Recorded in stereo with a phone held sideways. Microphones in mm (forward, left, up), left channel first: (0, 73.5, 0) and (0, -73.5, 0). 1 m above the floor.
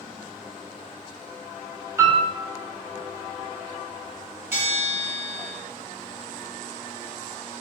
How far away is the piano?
About 0.7 m.